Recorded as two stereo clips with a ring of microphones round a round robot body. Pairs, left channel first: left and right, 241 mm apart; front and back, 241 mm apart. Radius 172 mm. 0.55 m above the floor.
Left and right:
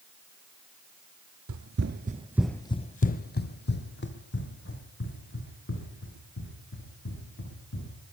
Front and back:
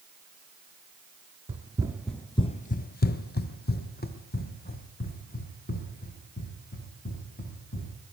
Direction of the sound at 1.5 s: 115° right.